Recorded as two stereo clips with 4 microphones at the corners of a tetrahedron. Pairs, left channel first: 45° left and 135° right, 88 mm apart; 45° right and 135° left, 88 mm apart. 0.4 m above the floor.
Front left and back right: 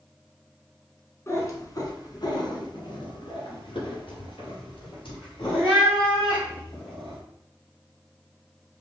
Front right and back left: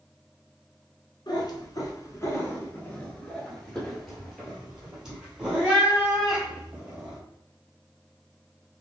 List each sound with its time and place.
1.3 s a cat meowing: 15° right, 1.1 m; by 7.2 s 60° left, 3 m